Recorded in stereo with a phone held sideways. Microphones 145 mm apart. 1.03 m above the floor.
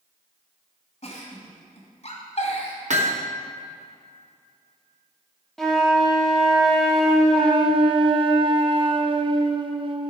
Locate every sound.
1.0 s a giggle: 55° left (ahead or behind), 2 m
2.9 s hammering: 55° right (ahead or behind), 1.0 m
5.6 s a flute: 5° left (ahead or behind), 1.3 m
7.3 s a flute: 35° right (ahead or behind), 0.6 m